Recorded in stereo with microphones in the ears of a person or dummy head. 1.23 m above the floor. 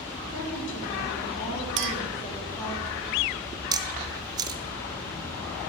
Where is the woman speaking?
50° left (ahead or behind), 4 m; by 2.8 s 20° left (ahead or behind), 3 m.